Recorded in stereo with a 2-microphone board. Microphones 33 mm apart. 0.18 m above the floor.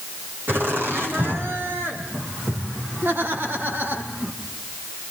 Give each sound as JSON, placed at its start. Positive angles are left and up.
{"t": 0.5, "sound": "laughter", "side_deg": -75, "distance_m": 8.5}